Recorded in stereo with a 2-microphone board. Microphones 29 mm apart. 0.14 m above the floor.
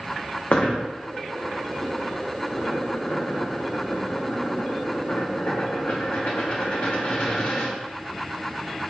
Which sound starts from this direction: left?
A dropped coin, at 0.5 s.